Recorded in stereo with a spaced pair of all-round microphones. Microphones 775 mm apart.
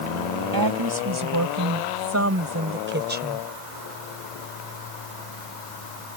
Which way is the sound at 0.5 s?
25° right (ahead or behind).